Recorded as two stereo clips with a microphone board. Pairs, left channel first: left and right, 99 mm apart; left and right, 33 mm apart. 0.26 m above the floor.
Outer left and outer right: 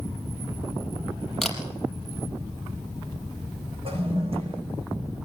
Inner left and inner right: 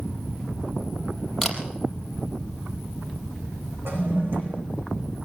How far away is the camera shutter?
About 4.5 m.